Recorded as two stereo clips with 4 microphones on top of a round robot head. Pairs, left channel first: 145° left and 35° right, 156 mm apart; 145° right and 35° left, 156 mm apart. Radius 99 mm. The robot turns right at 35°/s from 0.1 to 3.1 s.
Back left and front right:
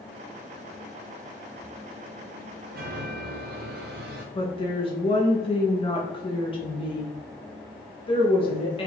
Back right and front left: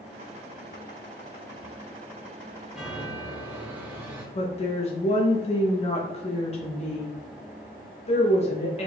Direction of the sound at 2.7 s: 50° right.